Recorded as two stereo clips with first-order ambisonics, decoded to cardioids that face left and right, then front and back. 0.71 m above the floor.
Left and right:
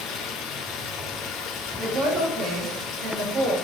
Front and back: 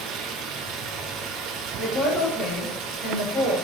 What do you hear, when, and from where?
0.0 s running water: 135° left, 0.8 m
1.8 s a woman speaking: 75° right, 1.3 m